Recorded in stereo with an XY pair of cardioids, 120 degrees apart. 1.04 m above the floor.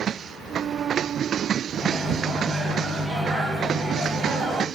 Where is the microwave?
35° right, 1.2 m.